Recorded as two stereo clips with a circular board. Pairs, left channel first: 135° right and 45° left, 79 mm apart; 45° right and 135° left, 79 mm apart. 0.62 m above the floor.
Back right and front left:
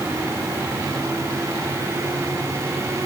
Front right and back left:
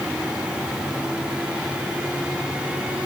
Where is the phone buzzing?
No phone buzzing in this recording.